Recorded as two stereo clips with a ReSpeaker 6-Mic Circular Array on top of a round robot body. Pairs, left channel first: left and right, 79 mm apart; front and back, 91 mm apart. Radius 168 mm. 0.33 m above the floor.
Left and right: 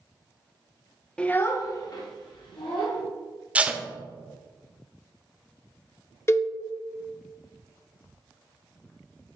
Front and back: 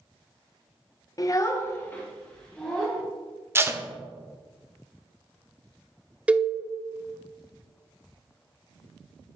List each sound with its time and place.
1.2 s a child speaking: 15° left, 0.7 m; by 3.0 s 80° left, 1.6 m
3.5 s tape being pulled: 145° right, 0.9 m
6.3 s a cowbell: 115° left, 0.6 m